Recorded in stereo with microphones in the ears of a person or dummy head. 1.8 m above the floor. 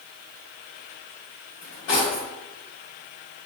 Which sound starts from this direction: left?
Cutlery clinking, at 1.6 s.